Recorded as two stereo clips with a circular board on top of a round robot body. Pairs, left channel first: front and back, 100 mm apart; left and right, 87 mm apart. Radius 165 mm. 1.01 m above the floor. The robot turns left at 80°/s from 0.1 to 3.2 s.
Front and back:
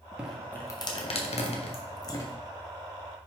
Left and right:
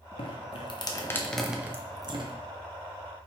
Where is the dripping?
100° left, 1.5 m; by 2.4 s 70° right, 1.5 m.